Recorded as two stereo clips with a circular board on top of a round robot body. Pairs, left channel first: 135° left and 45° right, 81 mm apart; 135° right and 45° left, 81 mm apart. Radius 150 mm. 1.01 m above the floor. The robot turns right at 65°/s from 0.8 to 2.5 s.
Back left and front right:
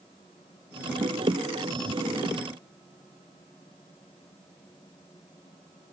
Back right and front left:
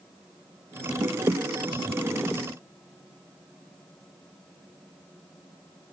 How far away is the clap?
No clap in this recording.